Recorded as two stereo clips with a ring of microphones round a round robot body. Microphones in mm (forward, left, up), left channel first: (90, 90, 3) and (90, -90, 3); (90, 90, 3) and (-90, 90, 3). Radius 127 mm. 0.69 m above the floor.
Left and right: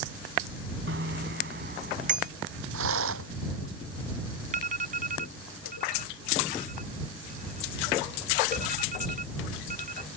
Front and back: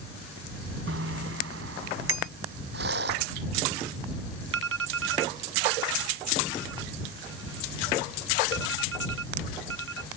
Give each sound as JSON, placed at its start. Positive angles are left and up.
{"t": 0.9, "sound": "a bicycle bell", "azimuth_deg": -140}
{"t": 2.7, "sound": "a rattle", "azimuth_deg": -125}
{"t": 4.5, "sound": "an alarm", "azimuth_deg": -150}